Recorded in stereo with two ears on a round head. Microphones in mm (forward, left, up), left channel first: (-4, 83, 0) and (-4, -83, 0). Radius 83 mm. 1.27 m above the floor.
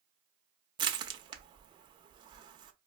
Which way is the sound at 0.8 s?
25° right (ahead or behind).